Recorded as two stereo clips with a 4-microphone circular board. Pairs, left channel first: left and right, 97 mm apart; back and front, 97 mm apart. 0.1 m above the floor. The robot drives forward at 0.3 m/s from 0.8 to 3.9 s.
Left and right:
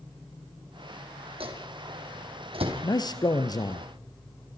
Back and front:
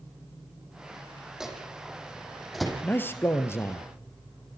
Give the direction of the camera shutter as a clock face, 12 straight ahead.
No camera shutter in this recording.